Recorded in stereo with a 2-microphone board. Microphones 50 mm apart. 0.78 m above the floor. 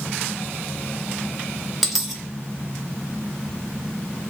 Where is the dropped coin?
10° right (ahead or behind), 1.1 m.